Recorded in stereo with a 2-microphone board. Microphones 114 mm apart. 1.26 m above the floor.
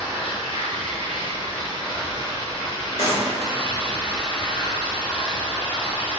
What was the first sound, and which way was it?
Running water, 50° left (ahead or behind).